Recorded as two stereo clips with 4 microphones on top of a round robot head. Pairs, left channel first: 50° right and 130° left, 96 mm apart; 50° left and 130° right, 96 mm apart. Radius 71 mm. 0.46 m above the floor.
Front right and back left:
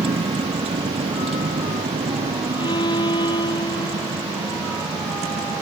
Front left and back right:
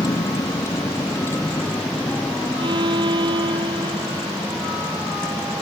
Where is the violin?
95° right.